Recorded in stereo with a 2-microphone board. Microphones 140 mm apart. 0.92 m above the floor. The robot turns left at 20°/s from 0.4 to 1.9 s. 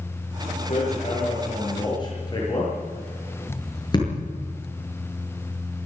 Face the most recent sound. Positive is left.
turn(degrees=30)  # may be behind; listen again after turning